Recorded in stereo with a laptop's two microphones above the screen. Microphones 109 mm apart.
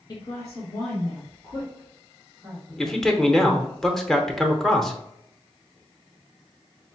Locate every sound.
0.1 s a woman speaking: 40° left (ahead or behind), 1.1 m; by 3.2 s 5° right (ahead or behind), 3.5 m
2.8 s a man speaking: centre (ahead or behind), 0.8 m